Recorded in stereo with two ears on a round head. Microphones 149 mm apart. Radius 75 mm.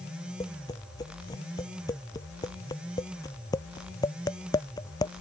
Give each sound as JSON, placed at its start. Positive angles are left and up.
{"t": 0.4, "sound": "tapping", "side_deg": 20}